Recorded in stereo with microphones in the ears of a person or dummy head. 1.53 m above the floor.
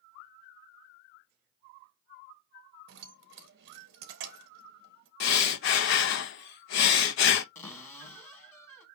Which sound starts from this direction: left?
Breathing, at 5.2 s.